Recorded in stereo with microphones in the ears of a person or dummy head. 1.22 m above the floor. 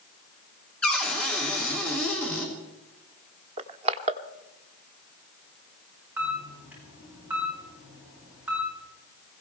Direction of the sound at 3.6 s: 35° right (ahead or behind).